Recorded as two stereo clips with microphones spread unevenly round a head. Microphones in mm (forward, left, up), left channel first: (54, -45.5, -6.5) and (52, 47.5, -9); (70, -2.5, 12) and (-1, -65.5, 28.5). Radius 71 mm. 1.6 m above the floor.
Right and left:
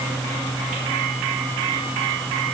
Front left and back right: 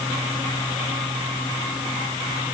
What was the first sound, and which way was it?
Only background noise.